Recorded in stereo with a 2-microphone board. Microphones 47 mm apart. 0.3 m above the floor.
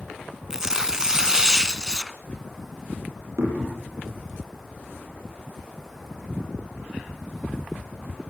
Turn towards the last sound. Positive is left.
turn(degrees=-80)